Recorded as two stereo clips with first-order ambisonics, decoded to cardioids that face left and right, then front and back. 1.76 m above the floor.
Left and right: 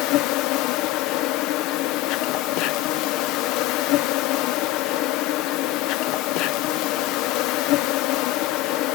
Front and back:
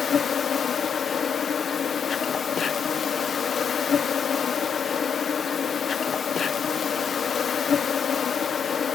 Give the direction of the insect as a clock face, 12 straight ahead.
10 o'clock.